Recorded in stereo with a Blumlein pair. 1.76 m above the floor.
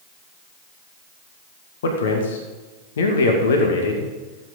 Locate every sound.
1.8 s a man speaking: 60° left, 2 m